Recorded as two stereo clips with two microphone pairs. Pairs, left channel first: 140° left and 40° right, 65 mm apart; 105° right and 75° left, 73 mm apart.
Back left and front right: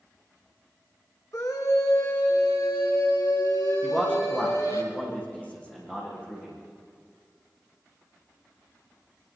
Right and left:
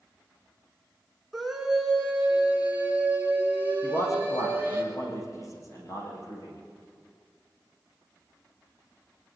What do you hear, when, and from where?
1.3 s a scream: 165° left, 3 m; by 4.8 s 135° left, 8 m
3.8 s a man speaking: 150° right, 9.5 m